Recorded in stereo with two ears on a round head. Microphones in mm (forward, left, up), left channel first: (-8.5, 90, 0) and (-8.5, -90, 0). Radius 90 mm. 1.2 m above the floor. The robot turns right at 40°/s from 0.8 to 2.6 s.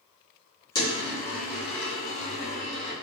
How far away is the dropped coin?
About 1.1 m.